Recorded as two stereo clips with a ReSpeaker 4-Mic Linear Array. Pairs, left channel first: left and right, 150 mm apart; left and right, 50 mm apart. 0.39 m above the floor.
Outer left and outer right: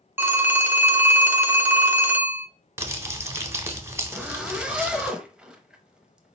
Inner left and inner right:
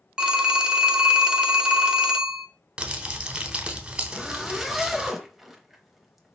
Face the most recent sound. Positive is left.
turn(degrees=-5)  # may be behind; listen again after turning